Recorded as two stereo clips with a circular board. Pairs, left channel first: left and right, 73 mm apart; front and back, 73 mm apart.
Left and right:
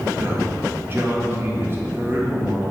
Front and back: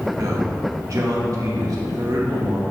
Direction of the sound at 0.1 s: 145° right.